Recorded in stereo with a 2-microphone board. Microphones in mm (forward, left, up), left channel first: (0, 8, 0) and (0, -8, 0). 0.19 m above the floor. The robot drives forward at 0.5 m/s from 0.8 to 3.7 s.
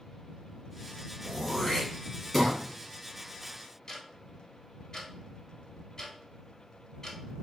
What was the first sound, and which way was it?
Throat clearing, 5° left (ahead or behind).